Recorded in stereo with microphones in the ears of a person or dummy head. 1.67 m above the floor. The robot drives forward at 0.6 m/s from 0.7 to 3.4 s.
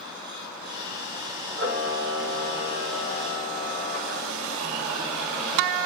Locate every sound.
1.6 s a camera shutter: 50° right (ahead or behind), 2 m